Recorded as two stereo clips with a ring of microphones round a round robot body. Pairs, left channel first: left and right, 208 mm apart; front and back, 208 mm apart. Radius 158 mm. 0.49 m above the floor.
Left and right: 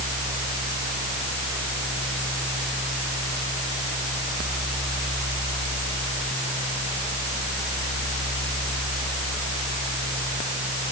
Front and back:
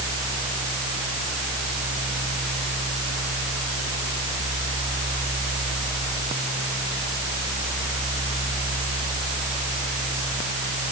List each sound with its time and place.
Only background noise.